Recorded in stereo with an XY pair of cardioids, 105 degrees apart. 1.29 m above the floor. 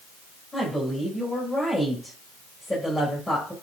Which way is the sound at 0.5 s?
10° left.